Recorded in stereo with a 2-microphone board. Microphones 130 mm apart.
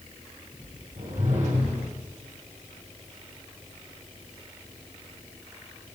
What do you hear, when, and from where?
1.0 s a whoosh: 65° right (ahead or behind), 5 m